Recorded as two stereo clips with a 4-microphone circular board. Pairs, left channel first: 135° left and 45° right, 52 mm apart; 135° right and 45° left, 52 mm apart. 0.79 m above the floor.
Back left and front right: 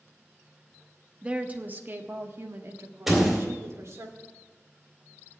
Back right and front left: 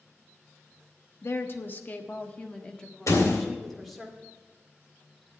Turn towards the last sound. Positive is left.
turn(degrees=-130)